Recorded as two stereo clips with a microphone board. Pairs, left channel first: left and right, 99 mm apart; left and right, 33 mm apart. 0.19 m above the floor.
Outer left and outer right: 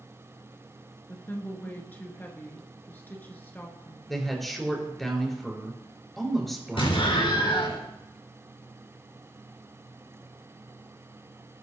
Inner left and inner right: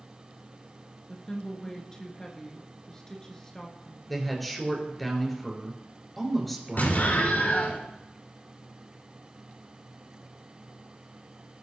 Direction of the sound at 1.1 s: 20° left (ahead or behind).